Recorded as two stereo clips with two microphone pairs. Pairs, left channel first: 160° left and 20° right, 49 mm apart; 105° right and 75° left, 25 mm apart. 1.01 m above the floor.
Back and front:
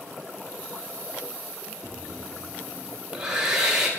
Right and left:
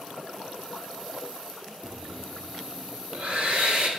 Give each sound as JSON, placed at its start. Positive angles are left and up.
{"t": 1.8, "sound": "breathing", "azimuth_deg": 55, "distance_m": 1.0}